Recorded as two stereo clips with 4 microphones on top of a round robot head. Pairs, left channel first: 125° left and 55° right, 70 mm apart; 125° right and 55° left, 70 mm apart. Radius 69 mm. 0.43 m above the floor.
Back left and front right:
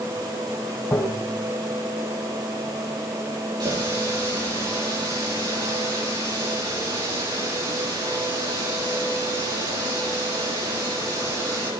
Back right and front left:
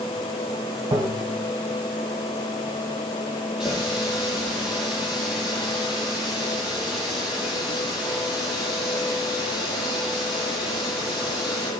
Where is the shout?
No shout in this recording.